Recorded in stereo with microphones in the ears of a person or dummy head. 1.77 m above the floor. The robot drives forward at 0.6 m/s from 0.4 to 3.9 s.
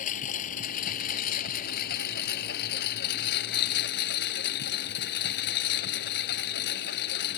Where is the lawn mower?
50° left (ahead or behind); by 7.4 s 65° left (ahead or behind).